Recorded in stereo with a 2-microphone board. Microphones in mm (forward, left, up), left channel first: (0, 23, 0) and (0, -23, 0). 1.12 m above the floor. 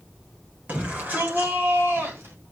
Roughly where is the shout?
Right.